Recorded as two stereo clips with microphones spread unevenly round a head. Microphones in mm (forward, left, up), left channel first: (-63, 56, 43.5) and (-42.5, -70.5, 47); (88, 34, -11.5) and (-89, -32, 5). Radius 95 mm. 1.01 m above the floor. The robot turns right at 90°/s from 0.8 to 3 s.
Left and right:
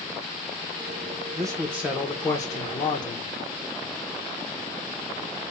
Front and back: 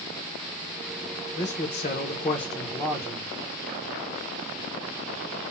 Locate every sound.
1.4 s a man speaking: 45° right, 0.9 m; by 3.3 s 105° left, 0.9 m